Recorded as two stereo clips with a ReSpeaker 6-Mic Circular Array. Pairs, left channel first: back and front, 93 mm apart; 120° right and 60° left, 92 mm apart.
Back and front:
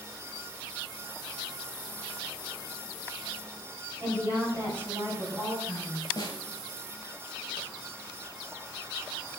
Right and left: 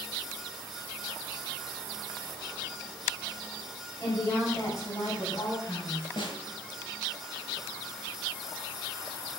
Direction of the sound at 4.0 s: 70° right.